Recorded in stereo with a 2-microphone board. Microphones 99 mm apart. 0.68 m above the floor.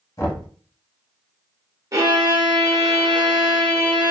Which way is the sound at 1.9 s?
35° right (ahead or behind).